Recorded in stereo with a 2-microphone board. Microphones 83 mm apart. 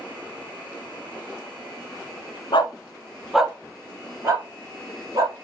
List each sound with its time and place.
2.5 s a dog barking: 70° left (ahead or behind), 0.7 m; by 5.3 s 45° right (ahead or behind), 2.5 m